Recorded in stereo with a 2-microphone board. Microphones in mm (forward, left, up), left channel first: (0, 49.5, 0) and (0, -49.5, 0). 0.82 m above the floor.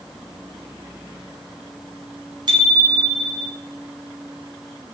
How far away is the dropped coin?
No dropped coin in this recording.